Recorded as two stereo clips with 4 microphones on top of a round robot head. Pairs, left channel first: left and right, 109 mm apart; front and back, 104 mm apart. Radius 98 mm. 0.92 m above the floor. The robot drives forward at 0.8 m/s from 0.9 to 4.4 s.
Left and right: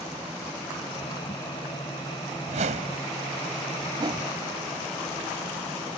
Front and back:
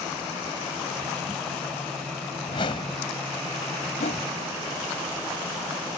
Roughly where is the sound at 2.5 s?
Ahead right.